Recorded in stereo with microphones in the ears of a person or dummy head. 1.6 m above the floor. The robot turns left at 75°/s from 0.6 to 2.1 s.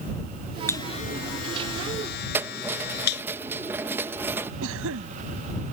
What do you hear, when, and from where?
0.7 s a buzzer: 10° left (ahead or behind); by 3.2 s 60° left (ahead or behind)
2.3 s keys jangling: 10° right (ahead or behind)
4.6 s a cough: 80° right